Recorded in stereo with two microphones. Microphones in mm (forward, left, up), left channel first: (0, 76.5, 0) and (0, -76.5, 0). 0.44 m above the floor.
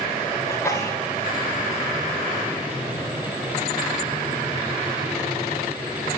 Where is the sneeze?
20° left (ahead or behind), 1.4 m.